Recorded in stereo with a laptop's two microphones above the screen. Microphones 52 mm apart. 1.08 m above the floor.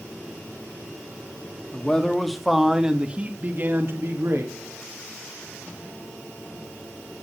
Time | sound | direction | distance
1.7 | a man speaking | 15° left (ahead or behind) | 2.5 m